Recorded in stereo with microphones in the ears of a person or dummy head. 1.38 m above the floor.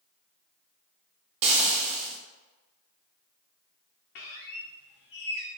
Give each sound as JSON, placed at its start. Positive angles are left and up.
{"t": 1.4, "sound": "frying", "side_deg": -35, "distance_m": 0.6}
{"t": 4.2, "sound": "a squeak", "side_deg": 60, "distance_m": 0.7}